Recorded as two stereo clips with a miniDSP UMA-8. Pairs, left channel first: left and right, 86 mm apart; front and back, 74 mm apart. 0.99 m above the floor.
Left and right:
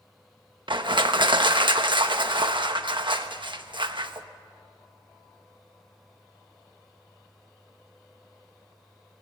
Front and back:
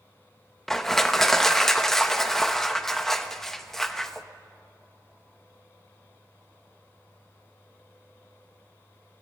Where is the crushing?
85° right, 1.2 m.